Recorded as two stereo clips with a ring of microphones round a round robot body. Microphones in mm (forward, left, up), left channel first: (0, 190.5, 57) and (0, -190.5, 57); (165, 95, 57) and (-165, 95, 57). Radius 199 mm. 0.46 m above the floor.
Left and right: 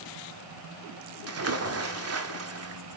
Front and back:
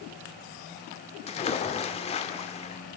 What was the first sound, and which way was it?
A splash, 65° right.